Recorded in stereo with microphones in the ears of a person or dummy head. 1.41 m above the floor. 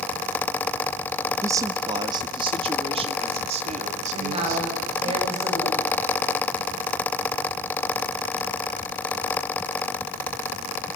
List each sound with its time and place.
1.4 s a man speaking: 15° right (ahead or behind), 1.4 m; by 5.1 s 45° right (ahead or behind), 4 m
4.1 s a woman speaking: 35° right (ahead or behind), 9 m